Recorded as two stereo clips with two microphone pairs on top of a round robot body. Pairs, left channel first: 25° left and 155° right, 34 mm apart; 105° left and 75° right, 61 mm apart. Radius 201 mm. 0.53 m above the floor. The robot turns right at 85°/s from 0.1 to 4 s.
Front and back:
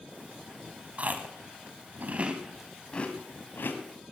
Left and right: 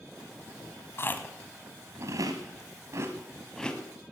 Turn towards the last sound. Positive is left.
turn(degrees=50)